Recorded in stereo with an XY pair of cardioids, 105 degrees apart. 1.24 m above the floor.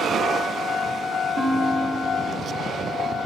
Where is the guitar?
50° right, 3.5 m.